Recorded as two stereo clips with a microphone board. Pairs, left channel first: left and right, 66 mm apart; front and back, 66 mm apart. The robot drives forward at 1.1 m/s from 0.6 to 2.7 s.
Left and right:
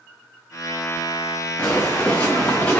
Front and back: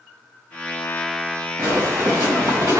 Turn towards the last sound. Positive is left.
turn(degrees=155)